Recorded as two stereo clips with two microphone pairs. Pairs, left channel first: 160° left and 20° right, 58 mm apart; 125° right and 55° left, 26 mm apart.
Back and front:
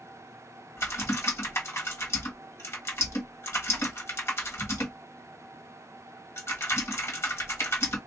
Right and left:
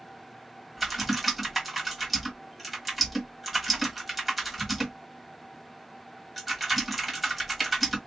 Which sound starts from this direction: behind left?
Typing on a keyboard, at 0.8 s.